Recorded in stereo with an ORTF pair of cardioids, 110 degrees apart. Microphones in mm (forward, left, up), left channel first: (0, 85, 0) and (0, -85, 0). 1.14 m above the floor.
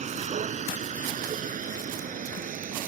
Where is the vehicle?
45° right; by 2.9 s 55° right.